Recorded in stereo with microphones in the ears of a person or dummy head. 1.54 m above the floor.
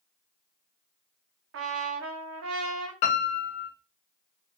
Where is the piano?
40° left (ahead or behind), 1.1 m.